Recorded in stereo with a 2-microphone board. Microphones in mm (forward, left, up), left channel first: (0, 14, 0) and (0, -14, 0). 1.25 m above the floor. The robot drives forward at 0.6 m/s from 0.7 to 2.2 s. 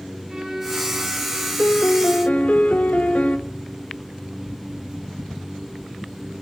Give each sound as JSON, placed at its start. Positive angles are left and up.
{"t": 0.3, "sound": "a violin", "side_deg": -10, "distance_m": 7.0}
{"t": 1.6, "sound": "a piano", "side_deg": 70, "distance_m": 0.8}